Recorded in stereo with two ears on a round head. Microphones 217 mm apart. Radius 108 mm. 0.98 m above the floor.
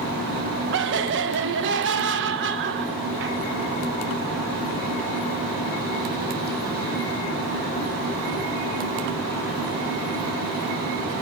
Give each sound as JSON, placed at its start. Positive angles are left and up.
{"t": 0.7, "sound": "laughter", "side_deg": -50, "distance_m": 0.9}